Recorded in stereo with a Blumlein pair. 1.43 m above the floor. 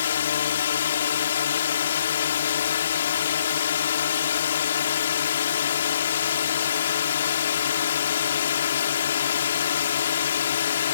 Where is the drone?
65° left.